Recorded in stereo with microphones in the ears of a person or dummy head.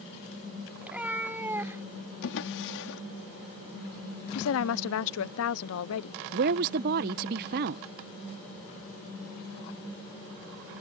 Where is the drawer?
60° left (ahead or behind).